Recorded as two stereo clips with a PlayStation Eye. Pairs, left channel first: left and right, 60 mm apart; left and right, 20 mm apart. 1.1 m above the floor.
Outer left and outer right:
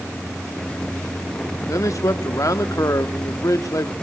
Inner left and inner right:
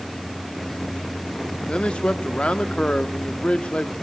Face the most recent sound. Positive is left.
turn(degrees=65)  # may be behind; listen again after turning